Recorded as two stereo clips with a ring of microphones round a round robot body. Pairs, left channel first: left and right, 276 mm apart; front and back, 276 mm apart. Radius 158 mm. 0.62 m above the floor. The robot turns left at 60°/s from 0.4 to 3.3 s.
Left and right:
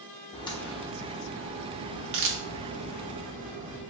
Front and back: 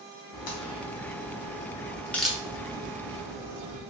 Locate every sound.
0.3 s a crack: 20° left, 0.8 m; by 3.8 s 155° right, 0.8 m